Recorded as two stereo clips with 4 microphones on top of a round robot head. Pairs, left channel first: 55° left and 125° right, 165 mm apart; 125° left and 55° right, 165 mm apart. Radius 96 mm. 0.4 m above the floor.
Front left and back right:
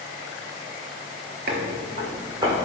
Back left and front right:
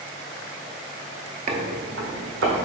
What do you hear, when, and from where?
1.5 s footsteps: 95° right, 0.6 m; by 2.7 s 65° right, 1.7 m